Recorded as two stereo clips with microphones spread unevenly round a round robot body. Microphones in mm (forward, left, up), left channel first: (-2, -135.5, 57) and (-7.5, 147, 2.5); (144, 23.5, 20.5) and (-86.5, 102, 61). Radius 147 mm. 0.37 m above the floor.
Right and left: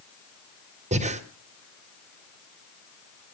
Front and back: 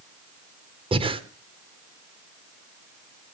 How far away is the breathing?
About 1.3 m.